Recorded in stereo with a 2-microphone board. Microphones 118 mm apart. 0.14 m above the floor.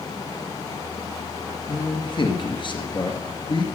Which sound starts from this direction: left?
A man speaking, at 1.7 s.